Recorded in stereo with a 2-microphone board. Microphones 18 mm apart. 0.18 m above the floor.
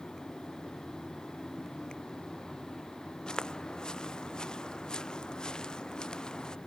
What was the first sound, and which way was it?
Footsteps, 45° left (ahead or behind).